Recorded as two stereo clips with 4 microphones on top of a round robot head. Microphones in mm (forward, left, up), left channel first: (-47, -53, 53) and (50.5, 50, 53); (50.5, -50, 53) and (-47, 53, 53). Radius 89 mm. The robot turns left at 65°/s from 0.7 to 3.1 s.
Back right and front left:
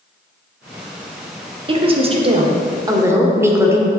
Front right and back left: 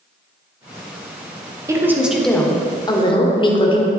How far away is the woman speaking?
About 1.4 m.